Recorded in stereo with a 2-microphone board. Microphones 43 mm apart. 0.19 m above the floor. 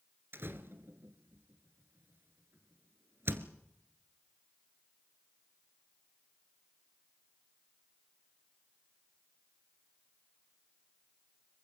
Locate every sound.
0.3 s a door slam: 60° right (ahead or behind), 1.8 m